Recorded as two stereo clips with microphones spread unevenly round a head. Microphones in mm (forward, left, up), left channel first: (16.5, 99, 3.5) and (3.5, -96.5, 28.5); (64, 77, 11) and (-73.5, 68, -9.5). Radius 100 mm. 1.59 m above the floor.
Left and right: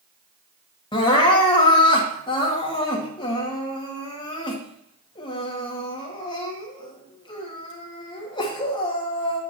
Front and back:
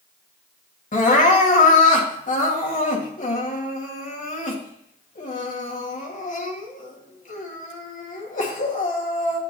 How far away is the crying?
About 2 m.